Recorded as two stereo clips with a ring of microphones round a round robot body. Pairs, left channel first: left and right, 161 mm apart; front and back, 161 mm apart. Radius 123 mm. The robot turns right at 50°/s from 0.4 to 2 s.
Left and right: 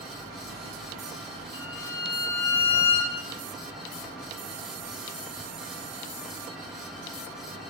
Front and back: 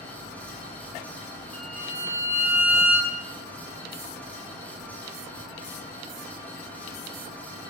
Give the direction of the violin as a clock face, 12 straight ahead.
9 o'clock.